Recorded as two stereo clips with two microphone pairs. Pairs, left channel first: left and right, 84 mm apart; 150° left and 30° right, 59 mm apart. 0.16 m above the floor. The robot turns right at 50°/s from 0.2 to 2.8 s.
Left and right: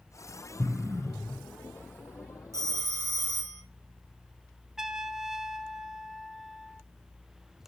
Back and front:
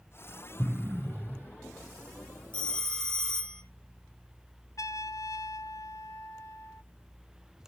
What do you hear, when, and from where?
0.6 s an explosion: 50° right, 1.0 m; by 1.5 s 5° right, 1.0 m
2.5 s a phone ringing: 140° right, 2.5 m; by 3.6 s 130° right, 2.5 m
4.8 s a trumpet: 175° right, 0.5 m